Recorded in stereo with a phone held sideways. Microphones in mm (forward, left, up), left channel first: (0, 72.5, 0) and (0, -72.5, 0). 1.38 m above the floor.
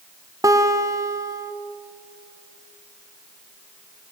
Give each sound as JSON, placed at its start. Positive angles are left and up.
{"t": 0.4, "sound": "a guitar", "side_deg": -25, "distance_m": 1.4}